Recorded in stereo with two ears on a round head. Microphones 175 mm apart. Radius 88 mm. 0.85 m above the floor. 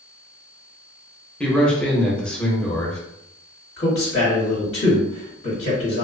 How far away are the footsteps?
I don't hear footsteps.